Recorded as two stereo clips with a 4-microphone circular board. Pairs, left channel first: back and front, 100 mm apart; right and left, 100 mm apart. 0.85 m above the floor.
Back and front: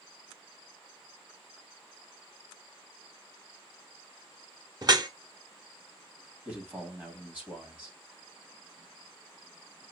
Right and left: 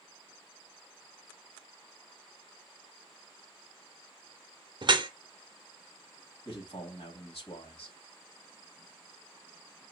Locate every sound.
4.8 s dripping: 50° left, 0.6 m
6.5 s a man speaking: 75° right, 2 m